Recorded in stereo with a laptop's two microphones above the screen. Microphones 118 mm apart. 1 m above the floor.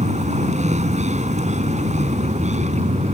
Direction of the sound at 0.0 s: 80° right.